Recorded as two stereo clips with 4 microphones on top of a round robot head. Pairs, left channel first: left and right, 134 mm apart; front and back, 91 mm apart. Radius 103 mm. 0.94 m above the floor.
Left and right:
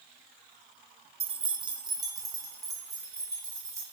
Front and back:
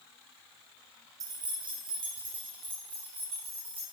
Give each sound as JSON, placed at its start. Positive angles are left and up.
{"t": 1.2, "sound": "keys jangling", "azimuth_deg": -130, "distance_m": 0.5}